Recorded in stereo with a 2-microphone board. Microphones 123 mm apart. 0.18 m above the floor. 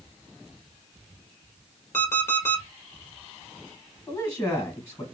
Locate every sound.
1.9 s an alarm clock: 20° left (ahead or behind), 1.5 m
4.1 s a man speaking: 25° left (ahead or behind), 1.7 m